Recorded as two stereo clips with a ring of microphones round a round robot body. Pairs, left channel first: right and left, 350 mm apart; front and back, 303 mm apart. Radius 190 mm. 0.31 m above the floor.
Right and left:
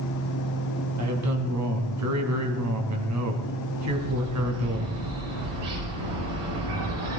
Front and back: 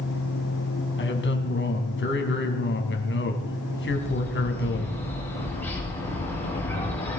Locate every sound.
1.0 s a man speaking: 50° left, 3 m
3.9 s a bird: 85° left, 9.5 m